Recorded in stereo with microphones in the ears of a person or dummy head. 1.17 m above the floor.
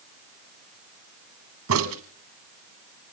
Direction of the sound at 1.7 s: 80° right.